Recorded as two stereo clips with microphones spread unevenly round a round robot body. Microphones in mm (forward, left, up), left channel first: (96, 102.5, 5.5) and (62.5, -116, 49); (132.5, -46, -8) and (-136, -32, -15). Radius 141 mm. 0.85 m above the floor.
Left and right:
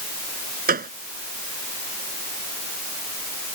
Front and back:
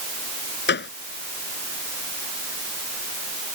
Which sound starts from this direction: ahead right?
A gunshot, at 0.7 s.